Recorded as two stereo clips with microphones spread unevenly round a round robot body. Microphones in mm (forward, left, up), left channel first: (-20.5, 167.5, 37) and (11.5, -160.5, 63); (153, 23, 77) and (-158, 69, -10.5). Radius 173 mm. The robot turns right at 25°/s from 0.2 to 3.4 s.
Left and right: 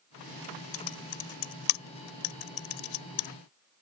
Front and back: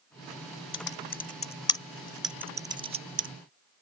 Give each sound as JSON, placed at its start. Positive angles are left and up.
{"t": 0.7, "sound": "typing on a keyboard", "azimuth_deg": 50}